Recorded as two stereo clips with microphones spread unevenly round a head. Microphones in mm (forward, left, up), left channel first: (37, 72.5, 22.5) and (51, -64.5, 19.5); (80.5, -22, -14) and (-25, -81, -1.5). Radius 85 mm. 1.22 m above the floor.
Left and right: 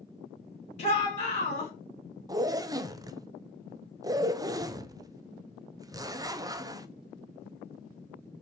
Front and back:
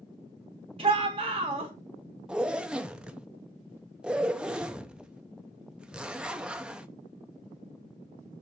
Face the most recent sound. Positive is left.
turn(degrees=-65)